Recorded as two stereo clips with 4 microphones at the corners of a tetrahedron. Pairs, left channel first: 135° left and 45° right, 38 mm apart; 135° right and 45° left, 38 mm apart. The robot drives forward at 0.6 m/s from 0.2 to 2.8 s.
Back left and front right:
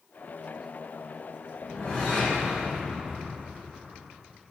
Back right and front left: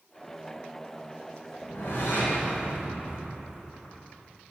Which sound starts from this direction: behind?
A whoosh, at 1.6 s.